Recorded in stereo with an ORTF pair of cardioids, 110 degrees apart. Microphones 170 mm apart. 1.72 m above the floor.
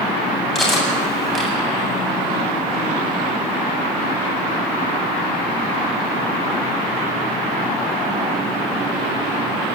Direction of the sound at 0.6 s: Straight ahead.